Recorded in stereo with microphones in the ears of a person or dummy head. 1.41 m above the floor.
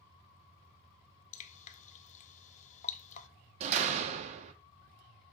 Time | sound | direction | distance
1.3 | dripping | 40° left (ahead or behind) | 0.6 m
3.6 | a door slam | 45° right (ahead or behind) | 0.8 m